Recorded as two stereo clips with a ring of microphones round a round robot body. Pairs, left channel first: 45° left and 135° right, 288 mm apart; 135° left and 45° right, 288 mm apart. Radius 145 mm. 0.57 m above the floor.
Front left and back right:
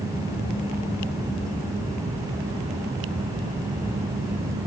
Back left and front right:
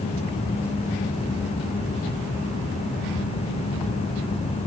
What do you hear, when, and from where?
Only background noise.